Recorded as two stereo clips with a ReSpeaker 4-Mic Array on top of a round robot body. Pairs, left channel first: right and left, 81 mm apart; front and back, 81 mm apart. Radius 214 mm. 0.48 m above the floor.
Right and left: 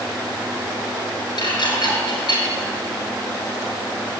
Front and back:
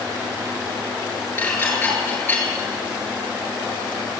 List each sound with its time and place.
1.4 s dishes clattering: 60° right, 7 m